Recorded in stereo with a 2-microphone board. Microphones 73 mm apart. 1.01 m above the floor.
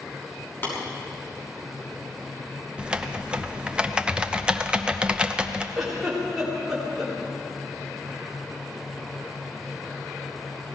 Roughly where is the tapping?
Left.